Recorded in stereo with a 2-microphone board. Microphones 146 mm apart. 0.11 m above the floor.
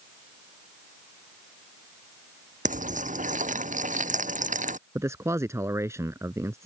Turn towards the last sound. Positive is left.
turn(degrees=-20)  # may be behind; listen again after turning